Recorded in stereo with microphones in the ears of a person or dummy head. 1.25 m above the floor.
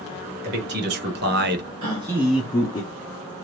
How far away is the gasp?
About 1.8 m.